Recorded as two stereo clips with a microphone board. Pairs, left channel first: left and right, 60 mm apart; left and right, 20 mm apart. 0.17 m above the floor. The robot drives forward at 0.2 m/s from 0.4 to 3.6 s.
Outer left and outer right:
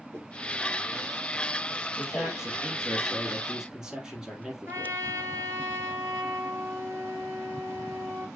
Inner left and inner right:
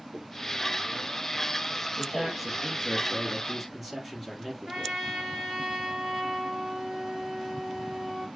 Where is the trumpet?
45° right (ahead or behind), 3 m.